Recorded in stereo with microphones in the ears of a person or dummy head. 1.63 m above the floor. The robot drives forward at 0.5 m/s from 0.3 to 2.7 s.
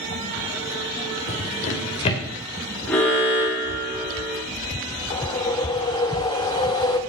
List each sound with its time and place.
1.3 s a drawer: 35° left (ahead or behind), 1.6 m; by 2.2 s 30° left (ahead or behind), 1.8 m
2.9 s an alarm: 10° left (ahead or behind), 3 m
5.1 s a whoosh: 20° left (ahead or behind), 0.8 m